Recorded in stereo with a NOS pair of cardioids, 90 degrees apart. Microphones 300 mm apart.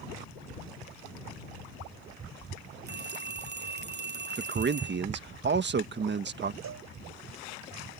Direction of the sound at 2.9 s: 35° right.